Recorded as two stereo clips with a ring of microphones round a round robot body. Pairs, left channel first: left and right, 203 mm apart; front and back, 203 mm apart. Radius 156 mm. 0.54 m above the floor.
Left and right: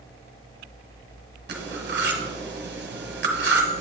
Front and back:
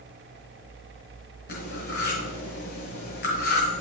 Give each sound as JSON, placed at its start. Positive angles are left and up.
{"t": 1.5, "sound": "cutlery clinking", "azimuth_deg": -55, "distance_m": 1.3}